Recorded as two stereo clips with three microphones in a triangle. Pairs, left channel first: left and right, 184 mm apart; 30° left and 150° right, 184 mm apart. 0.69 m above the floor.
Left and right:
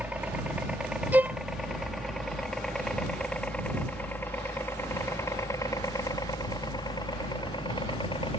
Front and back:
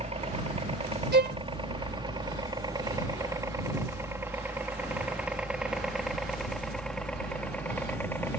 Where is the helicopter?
165° right; by 8.4 s 95° left.